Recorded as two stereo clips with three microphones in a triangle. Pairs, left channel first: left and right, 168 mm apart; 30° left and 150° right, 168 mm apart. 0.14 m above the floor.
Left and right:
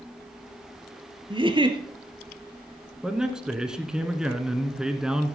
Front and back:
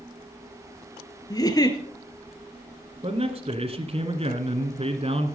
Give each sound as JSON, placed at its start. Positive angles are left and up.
{"t": 1.3, "sound": "a giggle", "azimuth_deg": -35, "distance_m": 1.4}
{"t": 3.0, "sound": "a man speaking", "azimuth_deg": -175, "distance_m": 1.4}